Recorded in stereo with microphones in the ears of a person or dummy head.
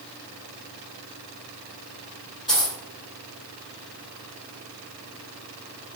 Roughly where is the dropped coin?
Centre.